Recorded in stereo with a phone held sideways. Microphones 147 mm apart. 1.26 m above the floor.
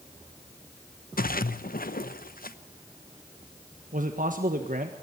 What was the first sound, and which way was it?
A splash, 75° left (ahead or behind).